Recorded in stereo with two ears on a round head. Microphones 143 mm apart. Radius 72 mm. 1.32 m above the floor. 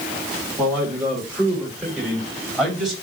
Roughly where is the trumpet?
I don't hear a trumpet.